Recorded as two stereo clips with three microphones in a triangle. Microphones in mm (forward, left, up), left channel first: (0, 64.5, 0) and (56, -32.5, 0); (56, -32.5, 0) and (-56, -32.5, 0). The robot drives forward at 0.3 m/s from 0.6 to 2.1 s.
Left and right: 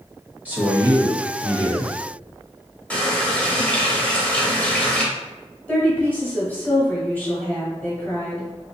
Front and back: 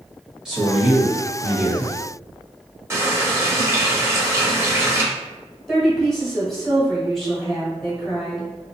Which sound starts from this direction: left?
A woman speaking, at 5.7 s.